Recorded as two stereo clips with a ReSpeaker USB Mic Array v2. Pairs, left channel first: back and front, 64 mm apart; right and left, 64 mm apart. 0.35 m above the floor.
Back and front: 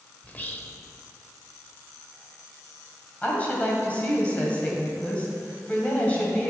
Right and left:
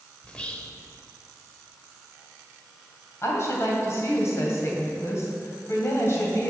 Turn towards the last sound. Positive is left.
turn(degrees=-120)